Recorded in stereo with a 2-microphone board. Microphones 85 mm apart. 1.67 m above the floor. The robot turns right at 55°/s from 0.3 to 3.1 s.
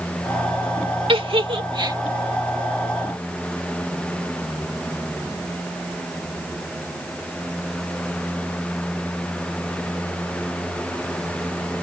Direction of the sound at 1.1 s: 80° right.